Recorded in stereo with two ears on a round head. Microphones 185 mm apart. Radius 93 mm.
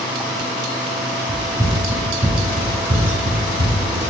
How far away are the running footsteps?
About 1.9 m.